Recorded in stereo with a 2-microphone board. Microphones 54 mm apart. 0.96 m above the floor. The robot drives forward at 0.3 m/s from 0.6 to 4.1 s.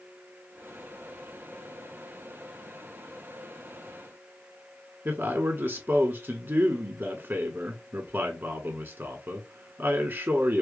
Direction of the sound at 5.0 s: 45° right (ahead or behind).